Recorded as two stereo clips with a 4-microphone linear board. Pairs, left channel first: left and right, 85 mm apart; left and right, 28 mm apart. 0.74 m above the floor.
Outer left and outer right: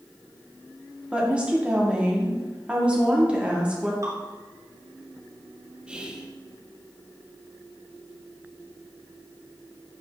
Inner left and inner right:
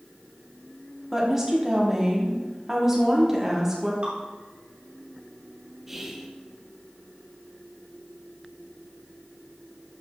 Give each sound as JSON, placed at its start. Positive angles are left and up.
{"t": 1.1, "sound": "a woman speaking", "side_deg": -15, "distance_m": 1.6}
{"t": 4.0, "sound": "dripping", "side_deg": -40, "distance_m": 1.9}
{"t": 5.9, "sound": "whispering", "side_deg": -10, "distance_m": 0.9}